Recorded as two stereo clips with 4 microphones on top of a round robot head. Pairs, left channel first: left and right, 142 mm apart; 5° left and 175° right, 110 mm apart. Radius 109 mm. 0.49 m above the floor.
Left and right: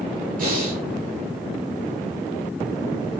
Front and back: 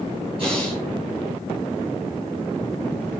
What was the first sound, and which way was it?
Breathing, 125° right.